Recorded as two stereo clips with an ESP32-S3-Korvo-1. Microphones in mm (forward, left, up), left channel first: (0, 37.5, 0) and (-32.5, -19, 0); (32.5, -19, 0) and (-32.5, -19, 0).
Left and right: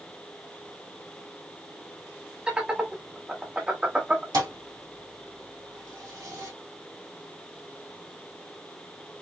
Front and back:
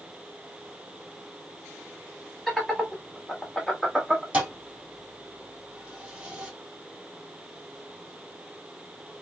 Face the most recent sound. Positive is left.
turn(degrees=-110)